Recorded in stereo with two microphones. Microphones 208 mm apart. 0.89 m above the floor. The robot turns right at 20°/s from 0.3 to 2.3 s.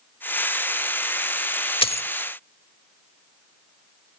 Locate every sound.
1.8 s a dropped coin: 25° left (ahead or behind); by 2.1 s 30° left (ahead or behind)